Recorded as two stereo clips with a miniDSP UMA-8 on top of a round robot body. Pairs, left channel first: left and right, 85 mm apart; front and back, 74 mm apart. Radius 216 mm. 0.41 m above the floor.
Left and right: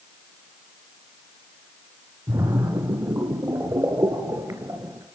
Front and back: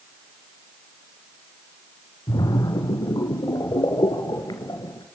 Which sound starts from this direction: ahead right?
A splash, at 2.3 s.